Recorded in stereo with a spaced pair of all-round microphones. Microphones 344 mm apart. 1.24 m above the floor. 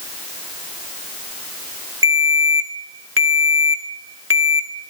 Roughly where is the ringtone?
Right.